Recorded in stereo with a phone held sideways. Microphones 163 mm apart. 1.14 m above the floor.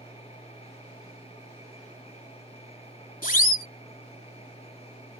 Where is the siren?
60° left (ahead or behind).